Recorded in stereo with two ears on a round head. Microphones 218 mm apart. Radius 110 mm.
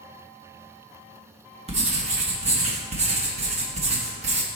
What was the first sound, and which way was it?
Writing, 25° right (ahead or behind).